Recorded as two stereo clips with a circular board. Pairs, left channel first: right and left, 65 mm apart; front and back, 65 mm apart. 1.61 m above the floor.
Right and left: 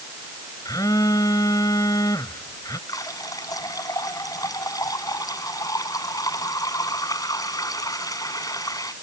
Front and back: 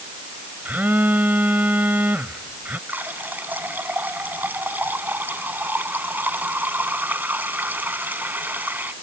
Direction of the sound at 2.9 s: 115° right.